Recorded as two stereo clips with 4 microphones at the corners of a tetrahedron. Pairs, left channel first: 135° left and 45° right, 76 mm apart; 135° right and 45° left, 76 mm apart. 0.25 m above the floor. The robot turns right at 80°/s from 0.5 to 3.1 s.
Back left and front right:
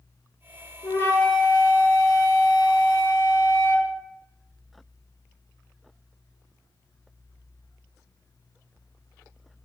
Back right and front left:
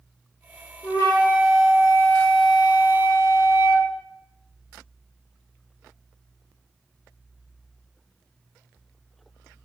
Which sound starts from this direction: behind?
A flute, at 0.8 s.